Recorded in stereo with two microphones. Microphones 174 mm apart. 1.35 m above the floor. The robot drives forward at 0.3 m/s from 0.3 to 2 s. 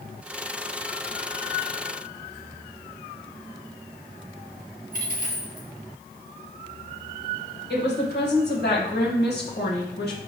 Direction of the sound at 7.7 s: 75° left (ahead or behind).